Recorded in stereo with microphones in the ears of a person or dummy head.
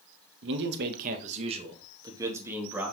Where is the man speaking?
65° right (ahead or behind), 1.4 m; by 2.9 s 5° right (ahead or behind), 2.5 m.